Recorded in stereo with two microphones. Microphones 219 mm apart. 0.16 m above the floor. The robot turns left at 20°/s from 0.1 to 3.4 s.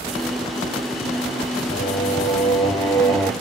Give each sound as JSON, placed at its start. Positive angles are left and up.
{"t": 1.7, "sound": "singing", "azimuth_deg": 40, "distance_m": 3.0}